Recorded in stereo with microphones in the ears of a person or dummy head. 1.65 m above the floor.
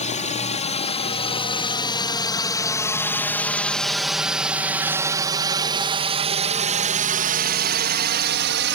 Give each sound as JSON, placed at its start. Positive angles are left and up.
{"t": 0.0, "sound": "a drone", "side_deg": 35}